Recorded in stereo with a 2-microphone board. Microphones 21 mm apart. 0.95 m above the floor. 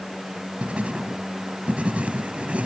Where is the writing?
75° right (ahead or behind).